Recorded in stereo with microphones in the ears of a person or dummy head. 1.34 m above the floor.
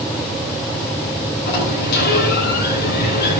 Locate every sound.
1.5 s a sliding door: 55° left (ahead or behind), 8.5 m